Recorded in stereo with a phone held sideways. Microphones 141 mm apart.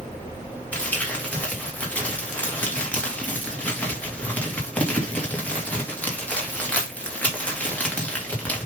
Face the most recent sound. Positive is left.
turn(degrees=10)  # may be behind; listen again after turning